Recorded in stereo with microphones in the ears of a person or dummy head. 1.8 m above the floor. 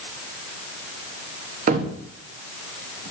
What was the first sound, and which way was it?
A cupboard door, 50° right (ahead or behind).